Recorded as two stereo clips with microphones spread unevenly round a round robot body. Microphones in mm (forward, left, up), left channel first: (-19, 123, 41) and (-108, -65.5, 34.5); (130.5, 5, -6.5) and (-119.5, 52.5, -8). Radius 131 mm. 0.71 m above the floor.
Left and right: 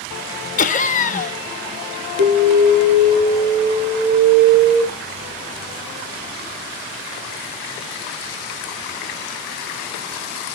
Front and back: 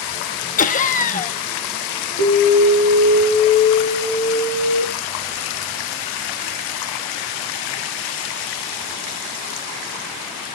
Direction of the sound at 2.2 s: 50° right.